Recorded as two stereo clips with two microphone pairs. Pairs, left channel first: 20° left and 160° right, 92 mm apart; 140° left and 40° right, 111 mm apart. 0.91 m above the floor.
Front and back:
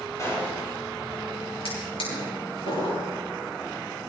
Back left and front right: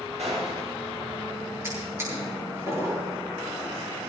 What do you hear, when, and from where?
0.2 s a gunshot: 35° right, 6.5 m
1.6 s a drawer: 25° left, 9 m